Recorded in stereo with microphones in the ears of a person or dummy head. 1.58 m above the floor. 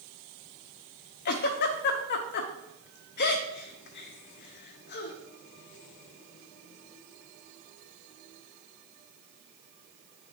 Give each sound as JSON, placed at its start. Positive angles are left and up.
{"t": 1.2, "sound": "a giggle", "side_deg": 50, "distance_m": 0.8}